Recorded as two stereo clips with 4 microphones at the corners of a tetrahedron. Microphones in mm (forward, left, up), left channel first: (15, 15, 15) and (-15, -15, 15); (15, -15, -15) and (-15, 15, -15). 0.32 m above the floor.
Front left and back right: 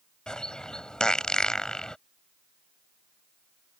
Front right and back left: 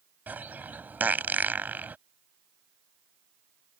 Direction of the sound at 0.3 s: 110° left.